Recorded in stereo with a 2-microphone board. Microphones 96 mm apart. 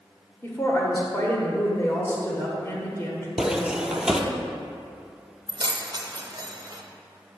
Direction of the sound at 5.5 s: 45° right (ahead or behind).